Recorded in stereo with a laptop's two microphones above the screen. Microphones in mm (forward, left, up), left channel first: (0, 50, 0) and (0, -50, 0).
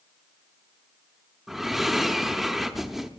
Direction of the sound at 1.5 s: Centre (ahead or behind).